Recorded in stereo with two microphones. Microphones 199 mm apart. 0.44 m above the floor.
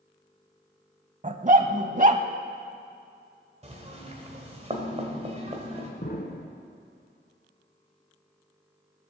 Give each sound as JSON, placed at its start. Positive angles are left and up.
{"t": 1.2, "sound": "a dog barking", "side_deg": -40, "distance_m": 0.8}
{"t": 3.6, "sound": "knocking", "side_deg": -35, "distance_m": 2.0}
{"t": 6.0, "sound": "an explosion", "side_deg": 50, "distance_m": 1.5}